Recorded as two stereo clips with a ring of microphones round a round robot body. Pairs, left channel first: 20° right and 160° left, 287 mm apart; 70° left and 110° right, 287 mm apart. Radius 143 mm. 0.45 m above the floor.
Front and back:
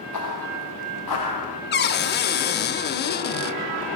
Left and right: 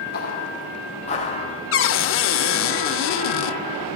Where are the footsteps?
10° left, 3.5 m; by 1.6 s 5° right, 3.5 m.